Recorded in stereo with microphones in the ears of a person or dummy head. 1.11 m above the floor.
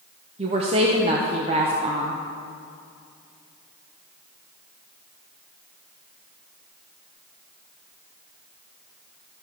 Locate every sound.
0.4 s a woman speaking: 30° right (ahead or behind), 0.6 m